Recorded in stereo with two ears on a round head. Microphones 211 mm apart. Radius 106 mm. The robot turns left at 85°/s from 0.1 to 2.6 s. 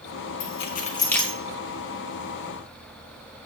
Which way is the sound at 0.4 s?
60° left (ahead or behind).